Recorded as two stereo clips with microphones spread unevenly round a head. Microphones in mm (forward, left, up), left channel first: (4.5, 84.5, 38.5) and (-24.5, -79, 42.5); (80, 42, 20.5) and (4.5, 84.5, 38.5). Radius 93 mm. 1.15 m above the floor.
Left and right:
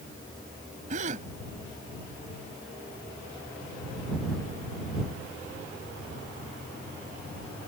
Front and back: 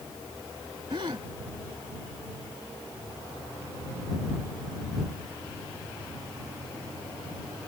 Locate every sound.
0.9 s a gasp: 145° right